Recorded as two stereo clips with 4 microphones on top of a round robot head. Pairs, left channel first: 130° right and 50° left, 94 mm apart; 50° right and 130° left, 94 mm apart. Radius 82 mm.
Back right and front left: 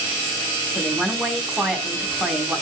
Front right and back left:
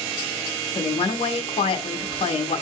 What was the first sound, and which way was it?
A woman speaking, 30° right.